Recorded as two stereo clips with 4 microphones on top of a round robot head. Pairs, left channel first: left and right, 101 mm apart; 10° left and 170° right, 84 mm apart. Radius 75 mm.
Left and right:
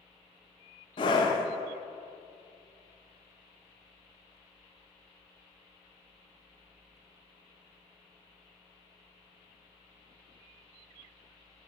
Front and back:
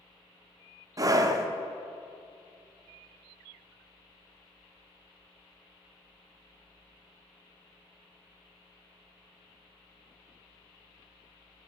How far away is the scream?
About 1.1 m.